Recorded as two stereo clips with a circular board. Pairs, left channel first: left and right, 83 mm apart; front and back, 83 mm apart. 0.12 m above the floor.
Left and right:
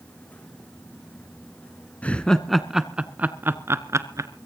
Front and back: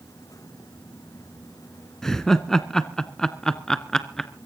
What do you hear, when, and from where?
2.0 s laughter: 75° left, 1.0 m; by 4.3 s 80° right, 1.4 m